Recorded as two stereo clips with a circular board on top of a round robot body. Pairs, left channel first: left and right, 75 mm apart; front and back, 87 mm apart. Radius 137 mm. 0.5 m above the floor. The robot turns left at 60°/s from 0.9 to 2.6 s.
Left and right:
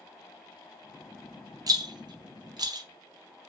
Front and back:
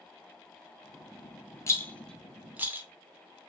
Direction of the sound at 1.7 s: 55° right.